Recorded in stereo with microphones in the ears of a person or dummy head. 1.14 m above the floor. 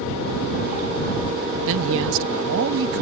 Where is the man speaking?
75° right (ahead or behind).